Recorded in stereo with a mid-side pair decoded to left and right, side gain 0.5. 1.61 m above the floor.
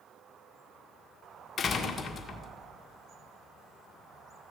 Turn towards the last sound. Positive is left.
turn(degrees=35)